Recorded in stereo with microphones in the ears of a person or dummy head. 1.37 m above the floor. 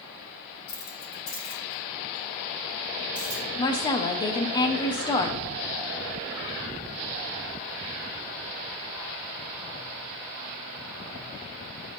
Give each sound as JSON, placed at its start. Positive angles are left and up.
{"t": 0.7, "sound": "keys jangling", "side_deg": 55, "distance_m": 2.0}
{"t": 3.6, "sound": "a woman speaking", "side_deg": 20, "distance_m": 0.6}